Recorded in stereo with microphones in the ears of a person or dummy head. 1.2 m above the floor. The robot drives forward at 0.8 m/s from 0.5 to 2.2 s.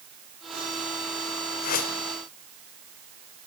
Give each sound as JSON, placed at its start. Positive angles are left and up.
{"t": 1.6, "sound": "a whoosh", "side_deg": 50, "distance_m": 1.7}